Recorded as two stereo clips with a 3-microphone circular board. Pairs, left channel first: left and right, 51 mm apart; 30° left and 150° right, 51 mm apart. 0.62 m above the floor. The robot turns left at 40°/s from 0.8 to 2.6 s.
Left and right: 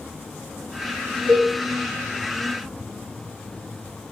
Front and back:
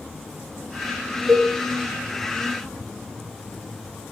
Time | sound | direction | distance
1.3 | a cowbell | 65° right | 1.5 m